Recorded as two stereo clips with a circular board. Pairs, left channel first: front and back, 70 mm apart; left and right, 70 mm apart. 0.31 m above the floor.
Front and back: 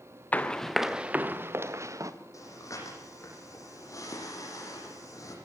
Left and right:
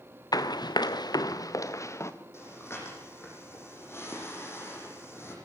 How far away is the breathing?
About 10 m.